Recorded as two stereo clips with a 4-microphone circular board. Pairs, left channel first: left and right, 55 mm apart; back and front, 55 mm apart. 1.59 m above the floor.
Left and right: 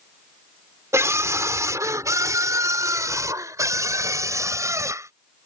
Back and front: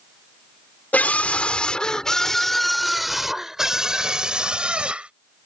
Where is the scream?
120° right; by 5.1 s 70° right.